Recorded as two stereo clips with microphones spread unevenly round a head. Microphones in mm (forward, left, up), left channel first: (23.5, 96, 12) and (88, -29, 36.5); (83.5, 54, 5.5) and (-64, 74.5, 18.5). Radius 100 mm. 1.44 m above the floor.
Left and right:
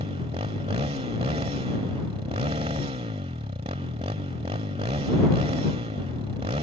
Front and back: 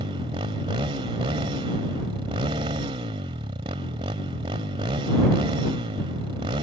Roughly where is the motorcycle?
Behind right.